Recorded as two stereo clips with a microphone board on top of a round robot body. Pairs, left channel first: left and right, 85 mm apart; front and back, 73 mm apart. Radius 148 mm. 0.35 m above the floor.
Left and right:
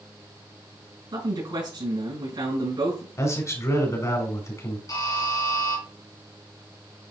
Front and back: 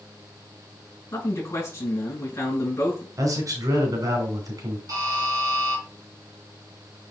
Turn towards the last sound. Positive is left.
turn(degrees=140)